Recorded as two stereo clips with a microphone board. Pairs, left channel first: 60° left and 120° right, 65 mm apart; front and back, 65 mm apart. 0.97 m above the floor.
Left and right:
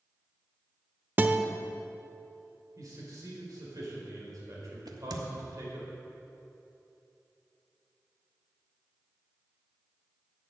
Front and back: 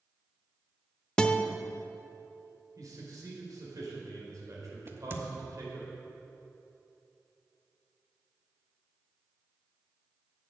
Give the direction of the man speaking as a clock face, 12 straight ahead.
5 o'clock.